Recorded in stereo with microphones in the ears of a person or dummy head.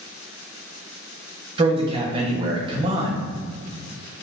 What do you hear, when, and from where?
1.6 s a man speaking: 30° right (ahead or behind), 0.6 m